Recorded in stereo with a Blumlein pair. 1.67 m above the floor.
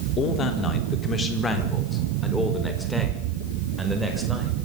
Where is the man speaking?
30° left, 3.5 m; by 4.5 s 5° right, 6.5 m.